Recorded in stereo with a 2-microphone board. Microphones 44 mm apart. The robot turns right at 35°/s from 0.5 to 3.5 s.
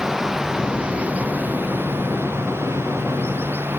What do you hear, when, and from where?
0.0 s running water: 165° right; by 3.8 s 60° right